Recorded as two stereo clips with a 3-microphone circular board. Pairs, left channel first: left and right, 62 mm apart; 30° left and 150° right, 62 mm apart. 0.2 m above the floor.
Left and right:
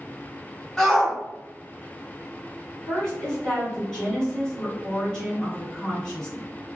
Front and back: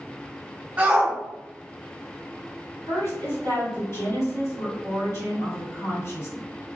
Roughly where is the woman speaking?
Ahead.